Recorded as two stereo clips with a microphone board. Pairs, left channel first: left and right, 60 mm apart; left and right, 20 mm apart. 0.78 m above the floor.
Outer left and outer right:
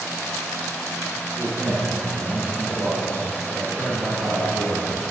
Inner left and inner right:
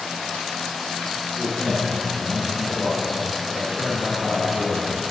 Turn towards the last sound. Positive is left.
turn(degrees=-35)  # may be behind; listen again after turning